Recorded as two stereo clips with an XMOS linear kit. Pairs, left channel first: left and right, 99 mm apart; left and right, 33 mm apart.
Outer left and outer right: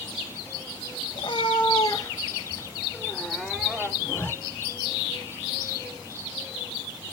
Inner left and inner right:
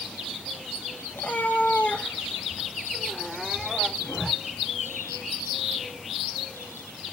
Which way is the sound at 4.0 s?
20° left (ahead or behind).